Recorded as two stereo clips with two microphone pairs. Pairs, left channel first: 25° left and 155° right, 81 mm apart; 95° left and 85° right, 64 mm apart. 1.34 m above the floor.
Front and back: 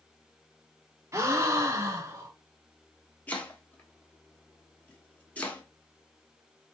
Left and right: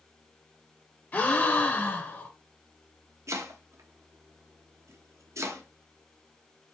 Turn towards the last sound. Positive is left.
turn(degrees=-50)